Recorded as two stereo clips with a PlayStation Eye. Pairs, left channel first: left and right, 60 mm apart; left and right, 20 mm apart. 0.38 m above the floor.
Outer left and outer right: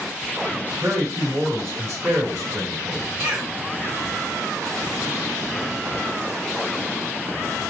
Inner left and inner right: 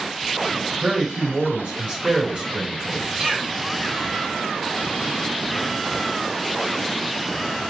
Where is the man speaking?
55° right (ahead or behind), 2.5 m.